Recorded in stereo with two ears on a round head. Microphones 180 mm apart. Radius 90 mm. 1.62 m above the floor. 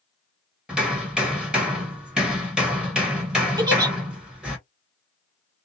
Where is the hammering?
5° right (ahead or behind), 1.3 m.